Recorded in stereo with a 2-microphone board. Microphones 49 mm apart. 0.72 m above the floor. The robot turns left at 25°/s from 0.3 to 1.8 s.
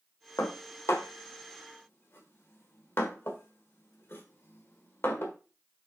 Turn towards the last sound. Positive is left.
turn(degrees=55)  # may be behind; listen again after turning